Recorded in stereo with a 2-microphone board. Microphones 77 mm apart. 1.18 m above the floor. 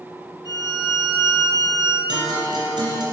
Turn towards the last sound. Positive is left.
turn(degrees=-75)  # may be behind; listen again after turning